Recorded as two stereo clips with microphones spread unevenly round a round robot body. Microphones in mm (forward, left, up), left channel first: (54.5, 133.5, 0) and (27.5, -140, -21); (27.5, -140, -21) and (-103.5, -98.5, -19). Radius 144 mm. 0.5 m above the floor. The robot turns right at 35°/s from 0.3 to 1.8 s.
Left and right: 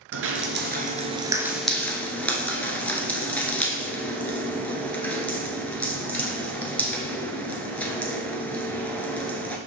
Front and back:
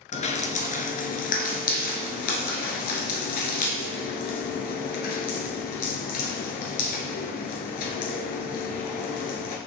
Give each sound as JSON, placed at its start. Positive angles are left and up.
{"t": 0.1, "sound": "dripping", "azimuth_deg": -50, "distance_m": 1.2}